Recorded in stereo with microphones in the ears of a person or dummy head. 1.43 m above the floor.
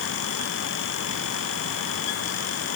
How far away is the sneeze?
I don't hear a sneeze.